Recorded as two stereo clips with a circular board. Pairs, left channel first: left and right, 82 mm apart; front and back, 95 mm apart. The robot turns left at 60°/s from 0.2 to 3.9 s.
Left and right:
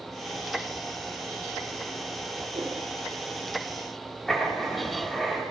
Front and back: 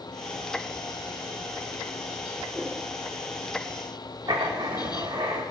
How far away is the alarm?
I don't hear an alarm.